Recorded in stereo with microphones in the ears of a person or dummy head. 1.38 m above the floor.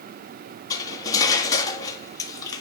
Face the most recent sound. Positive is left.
turn(degrees=20)  # may be behind; listen again after turning